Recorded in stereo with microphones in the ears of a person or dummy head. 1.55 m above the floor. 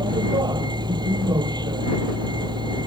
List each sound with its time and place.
0.0 s a vehicle: 20° right (ahead or behind)